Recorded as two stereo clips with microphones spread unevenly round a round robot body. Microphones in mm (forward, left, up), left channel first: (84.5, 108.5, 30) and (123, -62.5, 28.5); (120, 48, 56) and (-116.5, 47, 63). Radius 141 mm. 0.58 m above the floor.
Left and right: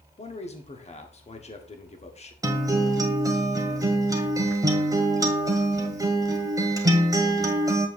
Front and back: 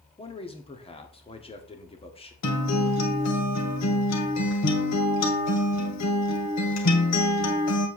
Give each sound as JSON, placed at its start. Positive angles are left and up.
{"t": 0.2, "sound": "a man speaking", "azimuth_deg": 60, "distance_m": 1.5}
{"t": 2.4, "sound": "a guitar", "azimuth_deg": -5, "distance_m": 1.8}